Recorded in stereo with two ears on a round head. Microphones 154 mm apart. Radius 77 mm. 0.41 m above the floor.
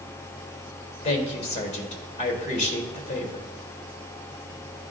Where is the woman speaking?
40° left (ahead or behind), 1.4 m.